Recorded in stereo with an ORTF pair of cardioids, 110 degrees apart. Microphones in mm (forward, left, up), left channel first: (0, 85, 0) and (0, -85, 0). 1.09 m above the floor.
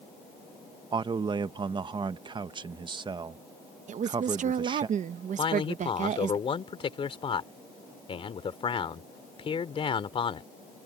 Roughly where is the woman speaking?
Ahead right.